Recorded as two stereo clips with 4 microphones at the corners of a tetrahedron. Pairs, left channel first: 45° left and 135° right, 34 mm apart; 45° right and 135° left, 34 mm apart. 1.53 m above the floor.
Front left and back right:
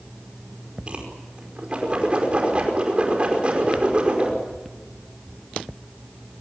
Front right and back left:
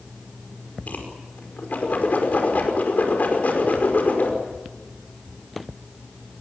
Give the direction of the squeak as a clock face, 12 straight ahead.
I don't hear a squeak.